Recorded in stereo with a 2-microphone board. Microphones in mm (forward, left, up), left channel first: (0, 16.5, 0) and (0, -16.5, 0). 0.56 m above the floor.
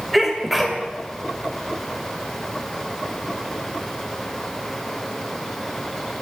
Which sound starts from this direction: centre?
A sneeze, at 0.1 s.